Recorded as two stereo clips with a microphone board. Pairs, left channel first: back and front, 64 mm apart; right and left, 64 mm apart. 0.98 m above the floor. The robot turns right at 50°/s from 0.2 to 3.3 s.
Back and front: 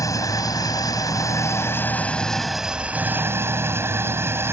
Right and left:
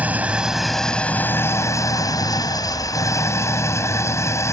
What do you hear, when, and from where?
0.0 s an engine running: 155° left; by 4.5 s 50° right